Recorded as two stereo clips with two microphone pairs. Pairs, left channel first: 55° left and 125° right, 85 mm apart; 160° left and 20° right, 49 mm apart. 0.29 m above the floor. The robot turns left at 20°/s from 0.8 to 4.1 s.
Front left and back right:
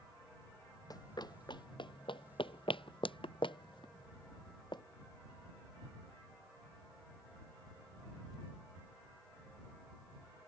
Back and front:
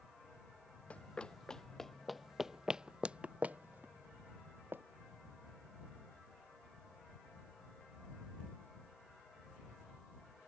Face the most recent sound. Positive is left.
turn(degrees=25)